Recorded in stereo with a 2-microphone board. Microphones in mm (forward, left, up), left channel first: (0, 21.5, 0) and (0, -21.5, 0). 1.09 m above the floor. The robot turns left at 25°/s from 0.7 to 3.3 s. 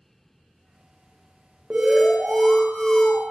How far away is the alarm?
About 0.6 m.